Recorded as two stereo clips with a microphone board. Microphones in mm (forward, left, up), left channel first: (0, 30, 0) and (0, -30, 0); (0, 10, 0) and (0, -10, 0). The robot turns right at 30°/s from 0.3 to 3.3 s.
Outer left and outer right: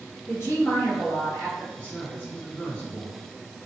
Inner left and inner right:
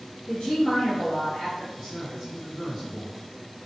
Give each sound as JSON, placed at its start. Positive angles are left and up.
{"t": 0.3, "sound": "a woman speaking", "azimuth_deg": 55, "distance_m": 1.7}
{"t": 1.8, "sound": "a man speaking", "side_deg": 20, "distance_m": 1.1}